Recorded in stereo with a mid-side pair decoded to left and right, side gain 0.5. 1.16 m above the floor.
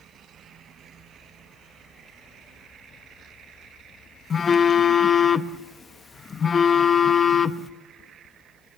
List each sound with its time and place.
4.3 s a phone buzzing: 40° left, 0.8 m